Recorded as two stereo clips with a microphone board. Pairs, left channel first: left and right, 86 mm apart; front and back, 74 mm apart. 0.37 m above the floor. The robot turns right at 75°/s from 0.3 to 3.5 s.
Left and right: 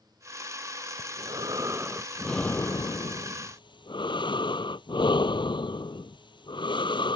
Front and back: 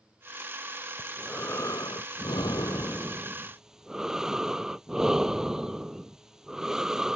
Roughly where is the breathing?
Right.